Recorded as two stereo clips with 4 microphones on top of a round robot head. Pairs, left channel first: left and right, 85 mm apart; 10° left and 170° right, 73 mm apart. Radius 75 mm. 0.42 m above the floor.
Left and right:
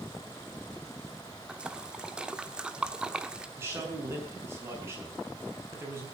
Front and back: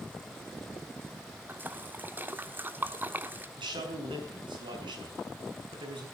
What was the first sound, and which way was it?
A splash, 160° right.